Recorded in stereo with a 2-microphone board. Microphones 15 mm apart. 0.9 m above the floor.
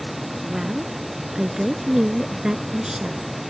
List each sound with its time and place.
0.4 s a woman speaking: 40° right (ahead or behind)